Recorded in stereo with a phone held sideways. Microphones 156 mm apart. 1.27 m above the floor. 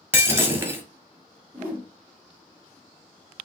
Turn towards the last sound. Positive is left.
turn(degrees=-15)  # may be behind; listen again after turning